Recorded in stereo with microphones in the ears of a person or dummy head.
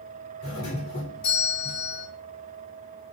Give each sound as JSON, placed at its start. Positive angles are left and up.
{"t": 0.4, "sound": "a doorbell", "side_deg": 70, "distance_m": 6.5}